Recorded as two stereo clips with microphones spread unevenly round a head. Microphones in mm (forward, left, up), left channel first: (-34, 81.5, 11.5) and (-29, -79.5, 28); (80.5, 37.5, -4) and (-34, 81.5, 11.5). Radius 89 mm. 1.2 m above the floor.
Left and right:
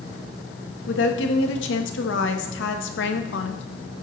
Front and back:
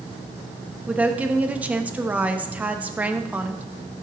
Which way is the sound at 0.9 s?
80° left.